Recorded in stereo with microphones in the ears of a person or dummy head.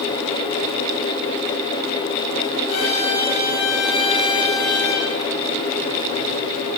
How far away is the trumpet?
About 9 m.